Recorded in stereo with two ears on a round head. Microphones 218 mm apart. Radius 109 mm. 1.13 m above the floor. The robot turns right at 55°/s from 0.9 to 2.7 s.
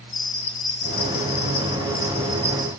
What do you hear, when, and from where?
0.1 s a bell: 90° left, 1.8 m; by 2.7 s 175° right, 1.8 m